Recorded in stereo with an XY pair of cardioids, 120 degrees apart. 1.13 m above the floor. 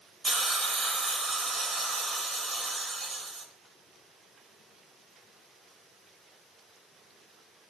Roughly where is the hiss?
Ahead right.